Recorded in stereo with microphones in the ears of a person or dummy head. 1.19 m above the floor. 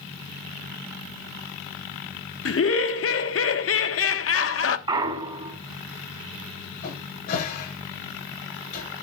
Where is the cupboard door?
55° left (ahead or behind), 8 m.